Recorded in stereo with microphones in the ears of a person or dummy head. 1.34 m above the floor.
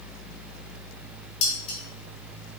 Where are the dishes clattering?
45° left (ahead or behind), 2.5 m.